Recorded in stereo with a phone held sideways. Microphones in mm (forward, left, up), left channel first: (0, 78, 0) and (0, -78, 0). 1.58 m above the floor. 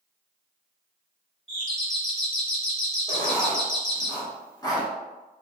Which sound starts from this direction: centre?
A doorbell, at 1.5 s.